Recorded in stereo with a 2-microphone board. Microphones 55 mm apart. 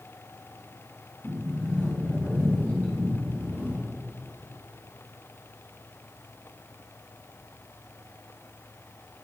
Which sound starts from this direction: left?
A sliding door, at 1.2 s.